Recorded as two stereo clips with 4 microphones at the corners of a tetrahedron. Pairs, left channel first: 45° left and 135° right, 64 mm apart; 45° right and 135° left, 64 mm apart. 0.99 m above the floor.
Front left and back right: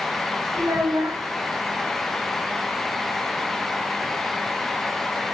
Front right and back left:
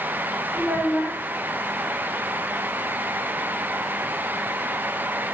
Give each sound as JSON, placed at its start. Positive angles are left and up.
{"t": 0.5, "sound": "a child speaking", "azimuth_deg": -160, "distance_m": 1.1}